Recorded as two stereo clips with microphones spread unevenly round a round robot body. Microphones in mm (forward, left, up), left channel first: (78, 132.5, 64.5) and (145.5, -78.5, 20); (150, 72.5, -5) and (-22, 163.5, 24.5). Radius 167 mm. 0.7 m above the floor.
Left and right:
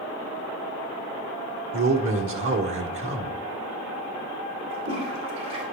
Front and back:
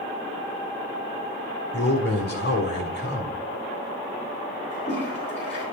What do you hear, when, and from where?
1.7 s a man speaking: 70° right, 1.7 m
4.7 s a toilet flushing: 90° right, 3 m